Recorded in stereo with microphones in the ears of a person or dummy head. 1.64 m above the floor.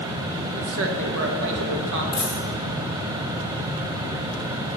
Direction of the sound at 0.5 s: 65° right (ahead or behind).